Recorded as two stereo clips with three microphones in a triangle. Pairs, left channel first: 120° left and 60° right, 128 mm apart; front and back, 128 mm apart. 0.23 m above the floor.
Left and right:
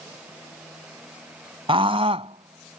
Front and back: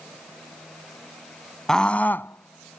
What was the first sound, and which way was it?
A scream, 85° right.